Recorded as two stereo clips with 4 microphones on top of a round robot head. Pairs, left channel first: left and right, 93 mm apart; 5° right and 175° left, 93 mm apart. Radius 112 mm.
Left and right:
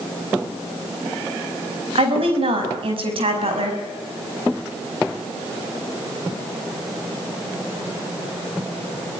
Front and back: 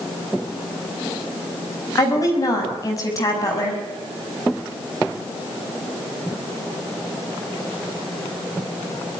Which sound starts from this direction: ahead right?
A woman speaking, at 1.9 s.